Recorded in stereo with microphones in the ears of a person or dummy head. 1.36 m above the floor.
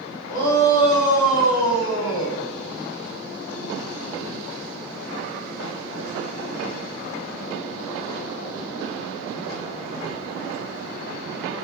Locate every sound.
0.3 s a shout: 70° left (ahead or behind), 3 m; by 2.4 s 75° left (ahead or behind), 1.7 m